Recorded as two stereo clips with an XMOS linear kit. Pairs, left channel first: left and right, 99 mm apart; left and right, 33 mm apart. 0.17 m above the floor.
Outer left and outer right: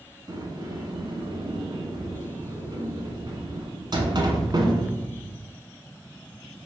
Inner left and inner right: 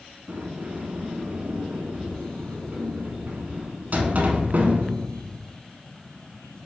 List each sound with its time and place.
0.3 s a sliding door: 45° right (ahead or behind), 0.8 m